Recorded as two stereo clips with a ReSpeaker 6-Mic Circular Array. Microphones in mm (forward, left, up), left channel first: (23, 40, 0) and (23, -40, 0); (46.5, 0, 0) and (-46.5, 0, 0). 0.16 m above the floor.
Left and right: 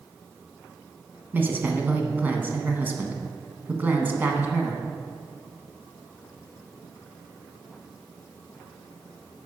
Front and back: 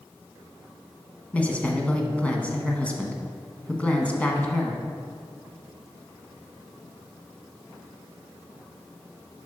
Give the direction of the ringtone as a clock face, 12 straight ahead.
No ringtone in this recording.